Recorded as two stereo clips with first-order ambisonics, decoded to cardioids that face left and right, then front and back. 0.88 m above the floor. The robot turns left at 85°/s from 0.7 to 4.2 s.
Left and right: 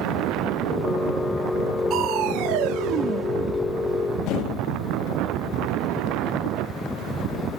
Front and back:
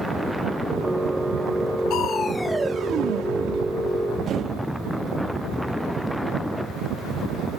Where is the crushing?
40° right, 1.1 m; by 4.7 s 125° left, 1.1 m.